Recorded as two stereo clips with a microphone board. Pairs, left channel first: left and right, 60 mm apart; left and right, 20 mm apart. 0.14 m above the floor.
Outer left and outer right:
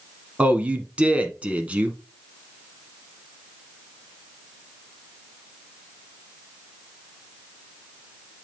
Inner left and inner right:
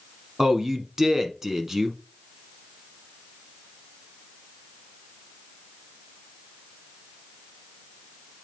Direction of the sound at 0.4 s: 20° right (ahead or behind).